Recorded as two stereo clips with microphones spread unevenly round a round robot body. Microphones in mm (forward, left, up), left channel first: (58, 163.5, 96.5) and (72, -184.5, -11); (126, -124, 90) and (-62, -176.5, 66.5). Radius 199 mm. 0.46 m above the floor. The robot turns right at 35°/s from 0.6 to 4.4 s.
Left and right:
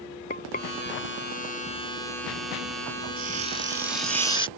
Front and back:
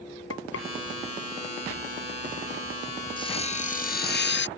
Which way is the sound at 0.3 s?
25° left.